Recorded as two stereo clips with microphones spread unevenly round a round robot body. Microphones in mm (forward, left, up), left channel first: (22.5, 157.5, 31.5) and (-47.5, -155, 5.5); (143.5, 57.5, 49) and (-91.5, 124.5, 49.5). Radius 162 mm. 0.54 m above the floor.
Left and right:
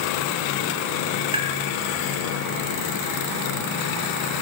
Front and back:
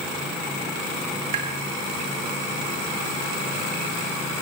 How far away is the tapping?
About 4.5 m.